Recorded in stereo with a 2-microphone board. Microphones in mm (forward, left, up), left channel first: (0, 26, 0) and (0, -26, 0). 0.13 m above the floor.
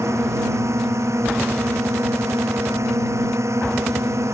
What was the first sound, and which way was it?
A drone, 75° right (ahead or behind).